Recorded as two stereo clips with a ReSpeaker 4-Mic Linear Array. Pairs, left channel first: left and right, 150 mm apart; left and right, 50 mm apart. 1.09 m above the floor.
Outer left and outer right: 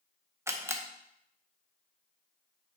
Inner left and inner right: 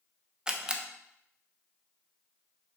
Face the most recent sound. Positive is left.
turn(degrees=-15)  # may be behind; listen again after turning